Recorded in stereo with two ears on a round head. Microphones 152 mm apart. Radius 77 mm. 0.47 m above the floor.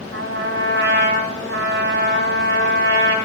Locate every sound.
0.1 s a trumpet: 70° right (ahead or behind), 2 m